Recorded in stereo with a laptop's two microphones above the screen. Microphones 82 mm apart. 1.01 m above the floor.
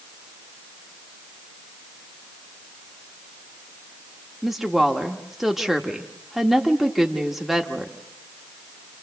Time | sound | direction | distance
4.4 | a woman speaking | 5° right (ahead or behind) | 1.3 m